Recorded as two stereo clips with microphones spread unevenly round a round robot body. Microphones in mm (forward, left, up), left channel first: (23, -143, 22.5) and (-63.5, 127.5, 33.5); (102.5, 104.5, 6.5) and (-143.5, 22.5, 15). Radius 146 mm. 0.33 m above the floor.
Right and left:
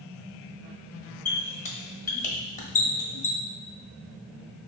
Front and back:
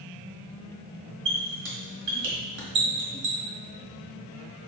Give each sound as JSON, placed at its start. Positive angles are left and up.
{"t": 1.2, "sound": "a squeak", "azimuth_deg": -125, "distance_m": 1.3}